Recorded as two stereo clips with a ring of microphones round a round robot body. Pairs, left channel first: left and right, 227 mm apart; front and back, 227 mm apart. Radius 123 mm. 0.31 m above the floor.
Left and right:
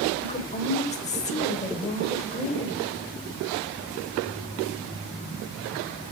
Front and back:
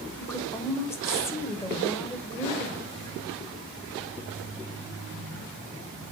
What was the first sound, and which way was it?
A woman speaking, 70° left.